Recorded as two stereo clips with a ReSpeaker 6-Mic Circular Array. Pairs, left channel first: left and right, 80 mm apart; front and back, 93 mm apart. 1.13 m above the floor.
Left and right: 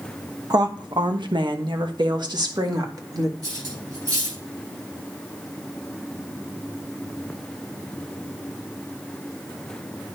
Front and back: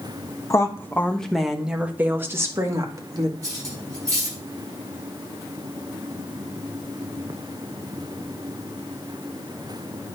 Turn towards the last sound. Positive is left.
turn(degrees=-125)